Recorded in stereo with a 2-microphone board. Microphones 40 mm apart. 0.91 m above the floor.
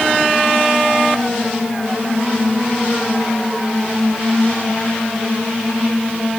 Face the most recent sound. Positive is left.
No sound to turn to.